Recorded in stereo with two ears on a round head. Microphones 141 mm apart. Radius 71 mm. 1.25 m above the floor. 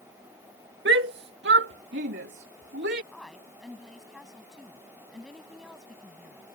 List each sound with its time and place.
0.8 s a shout: 75° right (ahead or behind); by 3.0 s 80° right
3.1 s a woman speaking: centre (ahead or behind)